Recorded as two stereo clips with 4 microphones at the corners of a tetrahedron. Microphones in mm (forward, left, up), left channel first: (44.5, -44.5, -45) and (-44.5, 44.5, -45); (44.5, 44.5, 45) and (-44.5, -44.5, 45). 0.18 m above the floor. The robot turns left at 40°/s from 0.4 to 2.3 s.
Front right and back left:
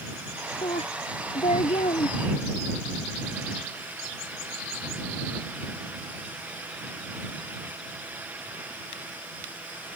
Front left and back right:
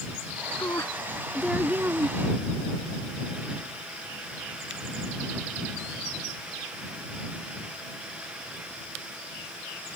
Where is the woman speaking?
15° right; by 2.2 s 75° right.